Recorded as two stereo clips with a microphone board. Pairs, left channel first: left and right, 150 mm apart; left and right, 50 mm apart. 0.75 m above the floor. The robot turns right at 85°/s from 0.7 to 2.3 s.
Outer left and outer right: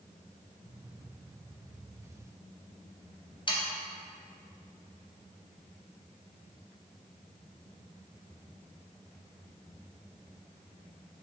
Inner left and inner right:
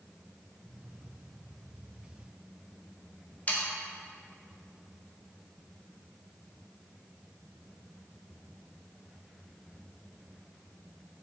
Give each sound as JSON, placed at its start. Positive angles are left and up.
{"t": 3.5, "sound": "sawing", "side_deg": 35, "distance_m": 0.5}